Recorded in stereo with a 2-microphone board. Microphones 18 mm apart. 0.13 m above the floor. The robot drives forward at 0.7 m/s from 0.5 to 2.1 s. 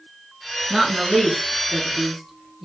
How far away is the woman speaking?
About 1.1 m.